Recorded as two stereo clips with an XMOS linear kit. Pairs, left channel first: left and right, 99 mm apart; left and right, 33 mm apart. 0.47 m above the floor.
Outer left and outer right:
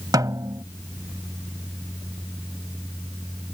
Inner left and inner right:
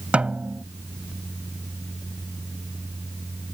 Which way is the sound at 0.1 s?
40° right (ahead or behind).